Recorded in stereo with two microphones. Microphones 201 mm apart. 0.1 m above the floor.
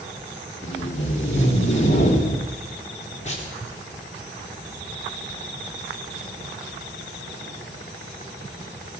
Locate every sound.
0.6 s tape being pulled: 35° left (ahead or behind), 4 m